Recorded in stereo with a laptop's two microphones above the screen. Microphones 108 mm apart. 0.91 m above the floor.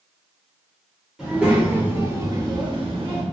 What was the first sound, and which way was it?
A child speaking, 5° right (ahead or behind).